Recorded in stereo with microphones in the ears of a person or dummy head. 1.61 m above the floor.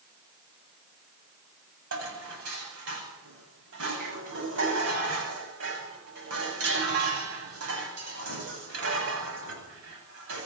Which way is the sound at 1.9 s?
65° right (ahead or behind).